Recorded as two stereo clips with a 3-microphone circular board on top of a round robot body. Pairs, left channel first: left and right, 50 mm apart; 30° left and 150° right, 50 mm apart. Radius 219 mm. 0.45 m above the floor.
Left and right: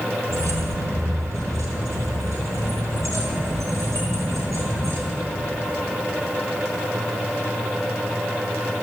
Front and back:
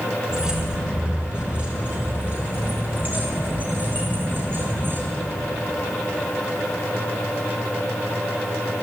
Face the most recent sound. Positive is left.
turn(degrees=-105)